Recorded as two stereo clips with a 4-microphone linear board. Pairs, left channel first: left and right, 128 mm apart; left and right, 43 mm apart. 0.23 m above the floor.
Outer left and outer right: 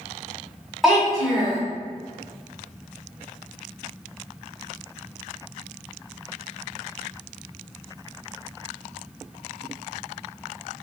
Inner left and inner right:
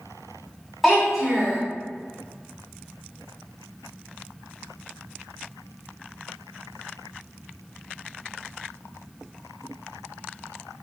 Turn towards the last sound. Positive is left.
turn(degrees=0)  # may be behind; listen again after turning